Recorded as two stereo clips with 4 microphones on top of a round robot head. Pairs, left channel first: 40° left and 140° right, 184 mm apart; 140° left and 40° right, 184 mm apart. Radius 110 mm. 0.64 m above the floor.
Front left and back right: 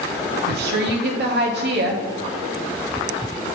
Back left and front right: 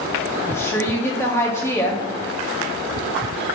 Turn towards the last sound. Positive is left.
turn(degrees=-145)